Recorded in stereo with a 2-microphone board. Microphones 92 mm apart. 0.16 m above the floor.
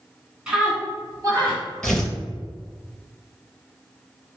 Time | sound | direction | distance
0.5 | a scream | 10° right (ahead or behind) | 1.4 m
1.8 | tearing paper | 5° left (ahead or behind) | 0.7 m